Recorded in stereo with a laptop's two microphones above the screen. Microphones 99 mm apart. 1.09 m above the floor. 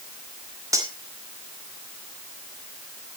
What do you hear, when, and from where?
0.7 s cutlery clinking: 35° right (ahead or behind), 1.8 m